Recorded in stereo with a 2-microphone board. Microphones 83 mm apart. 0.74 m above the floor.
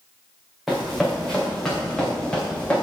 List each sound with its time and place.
0.7 s running footsteps: centre (ahead or behind), 3 m; by 2.8 s 15° left (ahead or behind), 3.5 m